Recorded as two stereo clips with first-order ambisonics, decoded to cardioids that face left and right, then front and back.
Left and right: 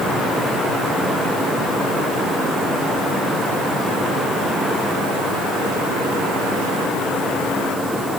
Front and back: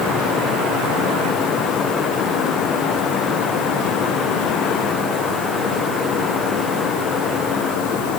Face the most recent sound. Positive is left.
No sound to turn to.